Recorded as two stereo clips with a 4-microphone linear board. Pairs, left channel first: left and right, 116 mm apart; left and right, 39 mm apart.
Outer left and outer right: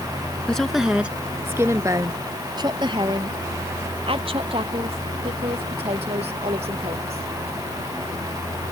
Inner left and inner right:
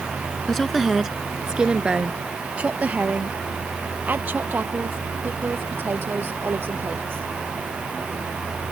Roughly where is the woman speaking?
Centre.